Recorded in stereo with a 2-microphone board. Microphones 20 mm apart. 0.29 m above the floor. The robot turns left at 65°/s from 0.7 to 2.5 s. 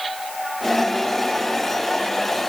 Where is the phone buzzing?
No phone buzzing in this recording.